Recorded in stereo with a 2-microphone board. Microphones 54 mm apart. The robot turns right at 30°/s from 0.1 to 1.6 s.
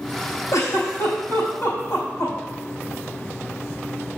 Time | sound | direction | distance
0.5 | a giggle | 80° left | 4 m